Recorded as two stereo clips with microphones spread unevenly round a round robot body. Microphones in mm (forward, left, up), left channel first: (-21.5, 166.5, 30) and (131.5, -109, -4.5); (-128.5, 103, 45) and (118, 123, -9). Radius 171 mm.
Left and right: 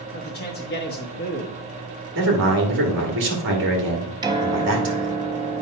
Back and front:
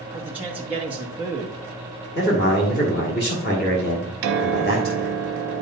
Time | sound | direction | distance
0.1 | a man speaking | 80° left | 1.1 m
2.1 | a man speaking | 110° right | 1.7 m
4.2 | a piano | 20° left | 1.1 m